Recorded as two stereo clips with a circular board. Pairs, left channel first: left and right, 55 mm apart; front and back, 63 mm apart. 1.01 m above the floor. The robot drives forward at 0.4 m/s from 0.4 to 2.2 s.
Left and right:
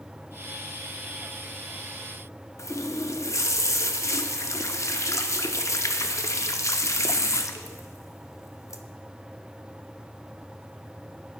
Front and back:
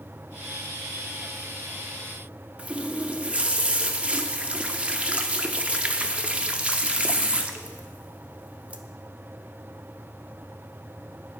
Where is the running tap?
110° left, 0.5 m.